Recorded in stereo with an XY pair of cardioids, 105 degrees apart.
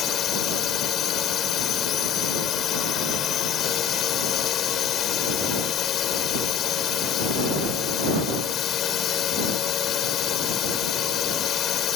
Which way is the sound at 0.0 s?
65° left.